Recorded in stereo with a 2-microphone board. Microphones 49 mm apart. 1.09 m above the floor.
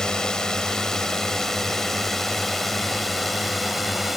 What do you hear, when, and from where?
0.0 s a drone: 15° left (ahead or behind); by 4.2 s 5° right (ahead or behind)